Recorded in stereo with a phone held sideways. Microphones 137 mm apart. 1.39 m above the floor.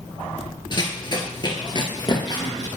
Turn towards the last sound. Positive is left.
turn(degrees=30)  # may be behind; listen again after turning